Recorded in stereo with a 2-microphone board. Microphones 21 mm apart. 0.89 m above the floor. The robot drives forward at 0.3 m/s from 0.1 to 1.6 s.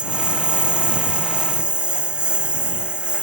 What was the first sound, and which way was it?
A lawn mower, 50° right (ahead or behind).